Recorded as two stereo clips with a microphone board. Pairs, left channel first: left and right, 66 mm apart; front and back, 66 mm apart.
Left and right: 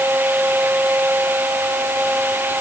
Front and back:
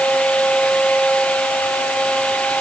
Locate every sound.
Only background noise.